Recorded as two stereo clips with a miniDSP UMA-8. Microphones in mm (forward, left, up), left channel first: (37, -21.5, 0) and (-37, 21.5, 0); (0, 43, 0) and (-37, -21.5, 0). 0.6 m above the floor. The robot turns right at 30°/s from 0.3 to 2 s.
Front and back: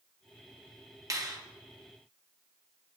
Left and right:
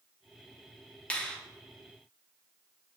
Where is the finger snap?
125° left, 0.5 m; by 1.4 s 135° left, 0.5 m.